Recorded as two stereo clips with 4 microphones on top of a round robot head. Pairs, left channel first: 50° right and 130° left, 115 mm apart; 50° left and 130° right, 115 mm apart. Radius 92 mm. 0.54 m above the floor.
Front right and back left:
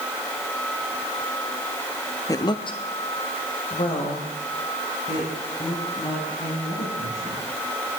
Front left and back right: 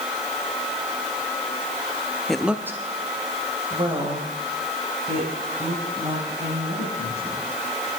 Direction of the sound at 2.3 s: 30° right.